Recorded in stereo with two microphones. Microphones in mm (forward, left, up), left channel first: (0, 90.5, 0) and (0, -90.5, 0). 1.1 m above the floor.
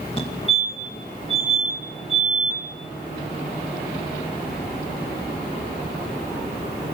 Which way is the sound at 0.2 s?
30° left (ahead or behind).